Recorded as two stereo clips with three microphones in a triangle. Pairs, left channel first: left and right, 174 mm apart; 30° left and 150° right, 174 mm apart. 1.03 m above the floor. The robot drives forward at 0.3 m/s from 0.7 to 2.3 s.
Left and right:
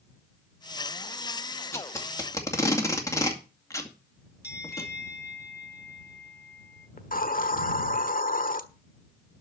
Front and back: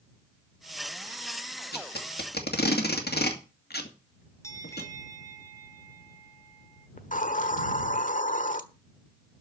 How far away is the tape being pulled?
About 2.5 m.